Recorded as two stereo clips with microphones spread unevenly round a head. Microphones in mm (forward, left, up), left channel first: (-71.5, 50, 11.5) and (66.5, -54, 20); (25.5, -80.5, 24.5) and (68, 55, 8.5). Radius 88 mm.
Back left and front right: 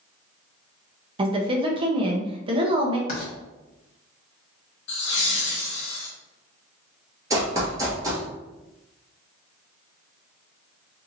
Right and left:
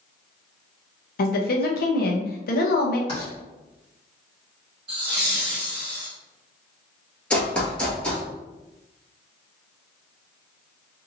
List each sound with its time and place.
1.2 s a woman speaking: 100° right, 0.8 m
3.1 s writing: 170° right, 1.4 m
4.9 s laughter: 130° left, 0.5 m
7.3 s running footsteps: 60° right, 1.0 m